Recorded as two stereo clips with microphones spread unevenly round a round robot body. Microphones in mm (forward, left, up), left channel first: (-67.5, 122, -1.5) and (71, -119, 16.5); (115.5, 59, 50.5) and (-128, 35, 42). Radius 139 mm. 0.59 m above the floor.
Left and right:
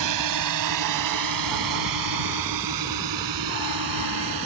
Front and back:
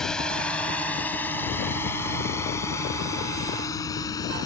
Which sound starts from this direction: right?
A drone, at 0.0 s.